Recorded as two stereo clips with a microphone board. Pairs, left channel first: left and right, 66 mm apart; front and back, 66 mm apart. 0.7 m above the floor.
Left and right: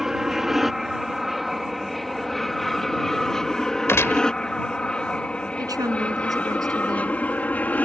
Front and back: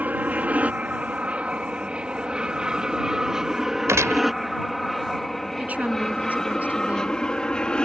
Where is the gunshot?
140° left.